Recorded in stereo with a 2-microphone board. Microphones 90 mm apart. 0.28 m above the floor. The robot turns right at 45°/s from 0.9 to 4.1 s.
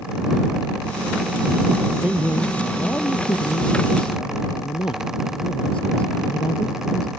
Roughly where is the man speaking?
Ahead.